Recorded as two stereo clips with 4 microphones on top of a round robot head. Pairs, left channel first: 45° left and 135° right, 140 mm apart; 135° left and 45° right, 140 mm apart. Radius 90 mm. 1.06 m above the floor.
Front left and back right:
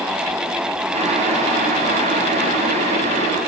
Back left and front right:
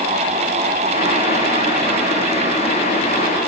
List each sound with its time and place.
0.9 s boiling: straight behind, 3 m